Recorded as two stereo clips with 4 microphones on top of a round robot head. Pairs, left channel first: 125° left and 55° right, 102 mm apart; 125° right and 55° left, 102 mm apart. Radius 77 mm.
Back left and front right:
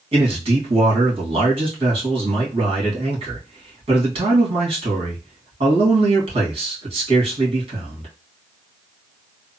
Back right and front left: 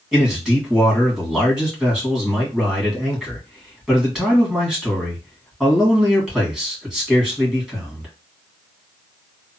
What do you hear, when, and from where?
0.1 s a man speaking: 30° right, 1.8 m